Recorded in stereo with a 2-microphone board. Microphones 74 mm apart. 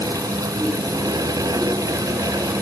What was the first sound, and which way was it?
Only background noise.